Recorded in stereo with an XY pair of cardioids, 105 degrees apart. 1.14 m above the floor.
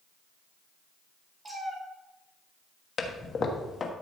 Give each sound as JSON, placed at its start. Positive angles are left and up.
{"t": 1.4, "sound": "a cat meowing", "azimuth_deg": -20, "distance_m": 2.5}
{"t": 3.0, "sound": "a toilet flushing", "azimuth_deg": 40, "distance_m": 1.3}